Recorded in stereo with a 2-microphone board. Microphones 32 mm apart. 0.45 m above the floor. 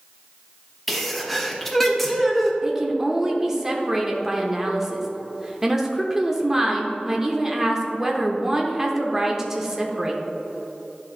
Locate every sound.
0.9 s a sneeze: 5° left (ahead or behind), 1.0 m
2.6 s a woman speaking: 10° right (ahead or behind), 0.8 m